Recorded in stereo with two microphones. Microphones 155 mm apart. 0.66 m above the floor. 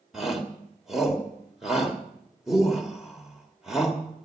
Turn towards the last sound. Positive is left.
turn(degrees=-5)  # may be behind; listen again after turning